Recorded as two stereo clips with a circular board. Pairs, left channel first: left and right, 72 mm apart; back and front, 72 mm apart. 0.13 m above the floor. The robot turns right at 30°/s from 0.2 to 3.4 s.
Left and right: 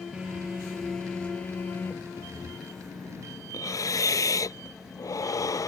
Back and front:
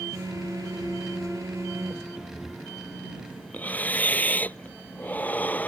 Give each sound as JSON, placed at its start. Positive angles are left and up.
{"t": 0.1, "sound": "a phone buzzing", "azimuth_deg": -15}
{"t": 2.2, "sound": "breathing", "azimuth_deg": 80}